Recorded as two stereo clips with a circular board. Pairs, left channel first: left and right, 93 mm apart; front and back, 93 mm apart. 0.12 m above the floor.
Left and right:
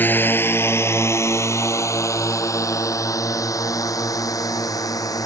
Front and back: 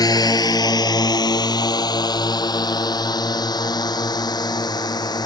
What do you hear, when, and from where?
0.0 s a drone: 25° left; by 5.2 s 40° left